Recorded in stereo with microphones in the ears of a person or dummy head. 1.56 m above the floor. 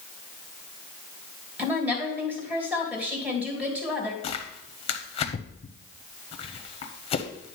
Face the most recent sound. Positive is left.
turn(degrees=30)  # may be behind; listen again after turning